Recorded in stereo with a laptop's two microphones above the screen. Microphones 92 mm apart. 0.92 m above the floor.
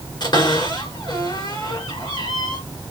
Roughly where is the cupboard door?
Left.